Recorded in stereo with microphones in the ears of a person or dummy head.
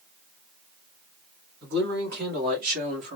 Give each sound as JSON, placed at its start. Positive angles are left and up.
{"t": 1.6, "sound": "a man speaking", "side_deg": -60, "distance_m": 2.0}